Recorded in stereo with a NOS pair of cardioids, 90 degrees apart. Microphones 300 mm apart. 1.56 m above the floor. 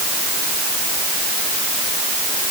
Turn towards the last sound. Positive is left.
No sound to turn to.